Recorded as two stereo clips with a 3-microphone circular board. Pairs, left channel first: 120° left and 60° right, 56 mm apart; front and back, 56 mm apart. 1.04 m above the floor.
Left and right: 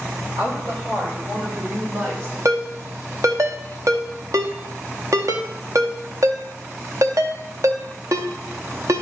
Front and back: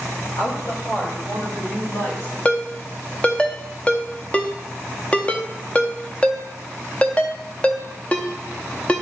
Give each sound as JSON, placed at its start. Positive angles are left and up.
{"t": 0.4, "sound": "a woman speaking", "azimuth_deg": -25, "distance_m": 3.5}
{"t": 2.5, "sound": "a ringtone", "azimuth_deg": -65, "distance_m": 0.7}